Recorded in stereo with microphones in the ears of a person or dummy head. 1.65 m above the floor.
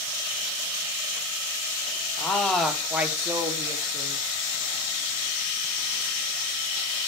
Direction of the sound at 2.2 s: 10° left (ahead or behind).